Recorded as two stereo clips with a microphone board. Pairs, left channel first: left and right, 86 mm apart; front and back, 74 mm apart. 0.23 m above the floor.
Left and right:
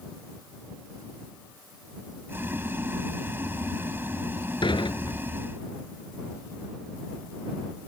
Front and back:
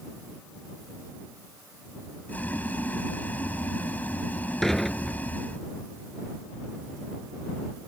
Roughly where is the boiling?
Ahead right.